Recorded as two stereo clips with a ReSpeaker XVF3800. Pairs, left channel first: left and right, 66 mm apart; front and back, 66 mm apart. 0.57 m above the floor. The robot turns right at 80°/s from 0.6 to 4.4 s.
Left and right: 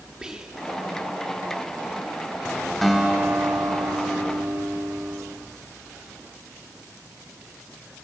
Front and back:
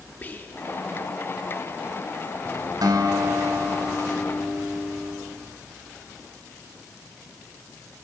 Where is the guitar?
175° left, 1.2 m; by 5.2 s 55° right, 1.2 m.